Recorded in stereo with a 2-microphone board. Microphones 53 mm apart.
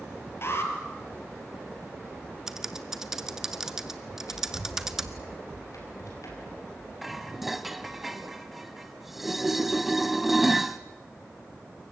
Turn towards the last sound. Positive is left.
turn(degrees=-5)  # may be behind; listen again after turning